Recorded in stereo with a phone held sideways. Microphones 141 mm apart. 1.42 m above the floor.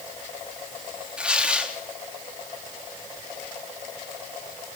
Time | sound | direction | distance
1.2 | tearing paper | 10° right (ahead or behind) | 3 m